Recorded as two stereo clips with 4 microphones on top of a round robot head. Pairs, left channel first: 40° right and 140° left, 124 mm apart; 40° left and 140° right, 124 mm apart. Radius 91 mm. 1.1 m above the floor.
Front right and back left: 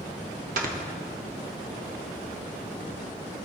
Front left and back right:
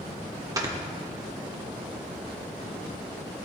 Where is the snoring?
155° left, 1.6 m.